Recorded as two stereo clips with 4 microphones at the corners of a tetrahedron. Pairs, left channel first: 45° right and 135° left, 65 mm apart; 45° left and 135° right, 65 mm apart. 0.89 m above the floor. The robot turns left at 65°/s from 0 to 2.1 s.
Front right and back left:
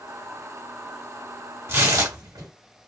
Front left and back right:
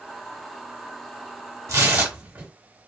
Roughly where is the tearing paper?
Behind.